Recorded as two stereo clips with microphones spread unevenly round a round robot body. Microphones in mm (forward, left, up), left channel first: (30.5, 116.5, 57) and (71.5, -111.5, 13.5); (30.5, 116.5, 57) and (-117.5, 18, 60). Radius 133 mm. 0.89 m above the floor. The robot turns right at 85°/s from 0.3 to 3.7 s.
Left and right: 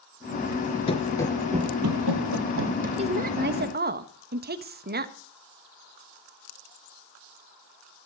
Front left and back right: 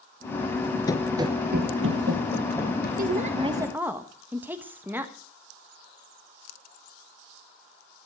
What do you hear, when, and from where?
0.9 s running footsteps: 85° left, 0.9 m; by 2.9 s 20° right, 3 m
3.0 s a woman speaking: 130° right, 1.3 m; by 5.1 s 70° right, 1.3 m